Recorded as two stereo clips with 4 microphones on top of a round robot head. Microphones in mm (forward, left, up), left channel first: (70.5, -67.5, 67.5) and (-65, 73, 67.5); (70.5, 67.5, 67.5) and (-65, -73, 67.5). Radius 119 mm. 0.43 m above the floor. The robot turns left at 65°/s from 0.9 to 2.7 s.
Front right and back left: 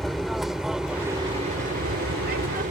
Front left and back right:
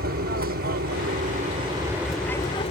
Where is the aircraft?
135° right; by 2.7 s 100° left.